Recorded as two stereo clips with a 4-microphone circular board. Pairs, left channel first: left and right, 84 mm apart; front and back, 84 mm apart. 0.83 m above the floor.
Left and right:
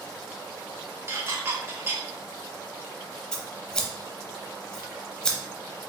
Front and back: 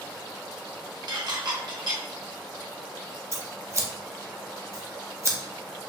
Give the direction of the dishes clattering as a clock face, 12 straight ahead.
5 o'clock.